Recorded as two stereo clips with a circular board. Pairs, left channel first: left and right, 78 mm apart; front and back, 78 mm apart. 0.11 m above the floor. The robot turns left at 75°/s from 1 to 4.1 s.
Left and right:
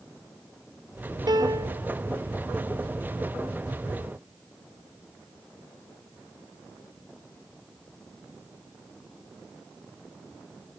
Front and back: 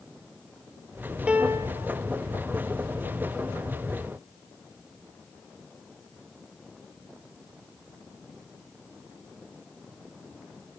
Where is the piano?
105° right, 0.5 m; by 1.8 s 150° right, 0.5 m.